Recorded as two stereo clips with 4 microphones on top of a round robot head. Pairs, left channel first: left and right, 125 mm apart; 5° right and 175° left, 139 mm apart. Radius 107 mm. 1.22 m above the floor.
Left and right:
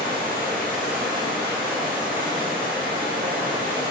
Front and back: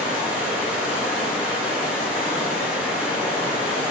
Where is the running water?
50° right, 2.0 m.